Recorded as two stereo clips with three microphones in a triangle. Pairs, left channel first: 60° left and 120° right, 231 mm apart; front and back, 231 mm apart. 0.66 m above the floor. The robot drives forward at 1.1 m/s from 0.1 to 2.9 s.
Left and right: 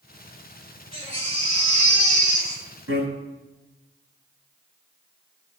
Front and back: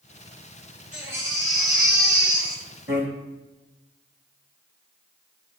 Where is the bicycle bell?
135° right, 6.5 m.